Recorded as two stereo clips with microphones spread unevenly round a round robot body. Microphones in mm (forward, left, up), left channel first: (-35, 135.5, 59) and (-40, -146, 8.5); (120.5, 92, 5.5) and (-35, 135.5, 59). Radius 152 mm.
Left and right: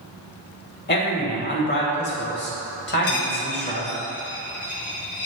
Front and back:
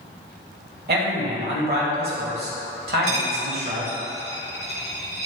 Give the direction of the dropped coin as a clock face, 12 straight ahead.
7 o'clock.